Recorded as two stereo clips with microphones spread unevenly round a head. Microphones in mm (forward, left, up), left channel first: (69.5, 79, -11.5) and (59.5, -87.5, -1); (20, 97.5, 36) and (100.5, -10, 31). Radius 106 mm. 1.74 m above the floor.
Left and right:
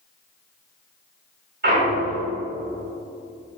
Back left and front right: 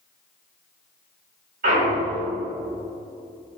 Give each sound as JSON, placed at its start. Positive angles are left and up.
{"t": 1.6, "sound": "a clunk", "azimuth_deg": -70, "distance_m": 4.0}